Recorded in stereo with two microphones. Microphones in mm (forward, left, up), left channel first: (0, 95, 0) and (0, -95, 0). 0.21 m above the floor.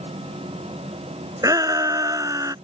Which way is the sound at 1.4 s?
20° right (ahead or behind).